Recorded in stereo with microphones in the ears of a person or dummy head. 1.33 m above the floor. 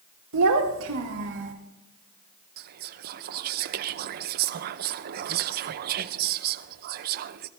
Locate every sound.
0.3 s a child speaking: 80° right, 1.6 m; by 1.5 s 60° right (ahead or behind), 2 m
2.6 s whispering: 50° right (ahead or behind), 0.7 m